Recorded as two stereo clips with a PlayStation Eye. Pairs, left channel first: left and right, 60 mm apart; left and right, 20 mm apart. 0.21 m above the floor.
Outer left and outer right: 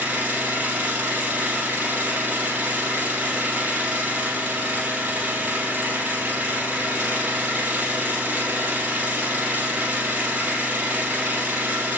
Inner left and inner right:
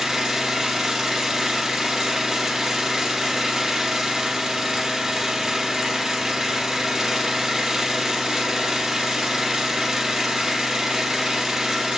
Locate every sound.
0.0 s an engine running: 30° right (ahead or behind), 4.5 m